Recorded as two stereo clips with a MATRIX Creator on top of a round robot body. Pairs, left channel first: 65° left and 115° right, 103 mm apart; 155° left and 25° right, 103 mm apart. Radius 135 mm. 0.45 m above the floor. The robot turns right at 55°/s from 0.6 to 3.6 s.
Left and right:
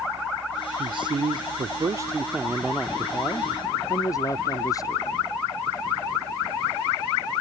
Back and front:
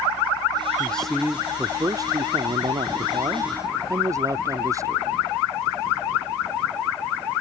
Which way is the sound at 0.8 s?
130° right.